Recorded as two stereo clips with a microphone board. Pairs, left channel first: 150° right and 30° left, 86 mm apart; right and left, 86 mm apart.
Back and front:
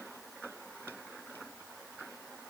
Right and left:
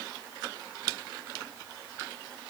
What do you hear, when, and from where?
Only background noise.